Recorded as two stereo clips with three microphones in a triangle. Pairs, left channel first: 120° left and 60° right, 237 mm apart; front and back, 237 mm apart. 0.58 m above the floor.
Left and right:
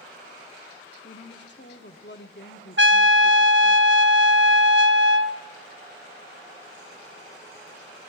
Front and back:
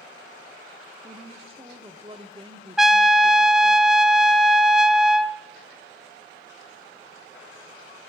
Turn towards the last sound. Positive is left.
turn(degrees=-90)